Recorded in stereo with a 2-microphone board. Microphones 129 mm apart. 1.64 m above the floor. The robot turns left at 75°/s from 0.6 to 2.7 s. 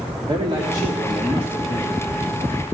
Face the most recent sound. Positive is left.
turn(degrees=65)